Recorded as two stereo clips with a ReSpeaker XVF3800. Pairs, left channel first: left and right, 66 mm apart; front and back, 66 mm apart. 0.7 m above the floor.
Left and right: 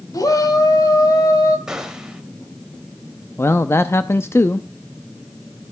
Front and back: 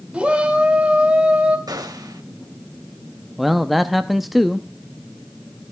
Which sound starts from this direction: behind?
A gunshot, at 1.7 s.